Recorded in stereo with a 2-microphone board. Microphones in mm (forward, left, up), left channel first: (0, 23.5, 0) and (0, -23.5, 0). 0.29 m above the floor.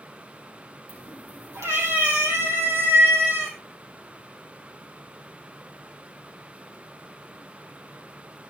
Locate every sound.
0.9 s a cat meowing: 70° right (ahead or behind), 5.5 m; by 3.5 s 55° right (ahead or behind), 8 m